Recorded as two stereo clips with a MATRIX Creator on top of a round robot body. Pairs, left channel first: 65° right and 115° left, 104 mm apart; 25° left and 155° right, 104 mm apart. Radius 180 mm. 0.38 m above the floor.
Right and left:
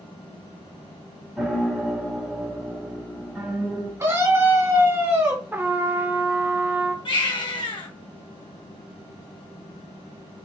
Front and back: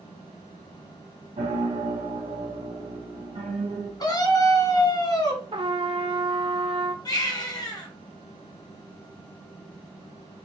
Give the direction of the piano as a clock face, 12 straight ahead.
5 o'clock.